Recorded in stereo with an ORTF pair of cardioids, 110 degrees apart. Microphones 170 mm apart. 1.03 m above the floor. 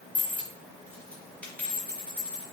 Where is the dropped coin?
10° left, 1.3 m.